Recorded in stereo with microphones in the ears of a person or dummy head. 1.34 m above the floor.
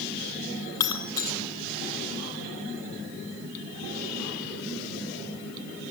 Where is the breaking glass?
25° left (ahead or behind), 2.5 m.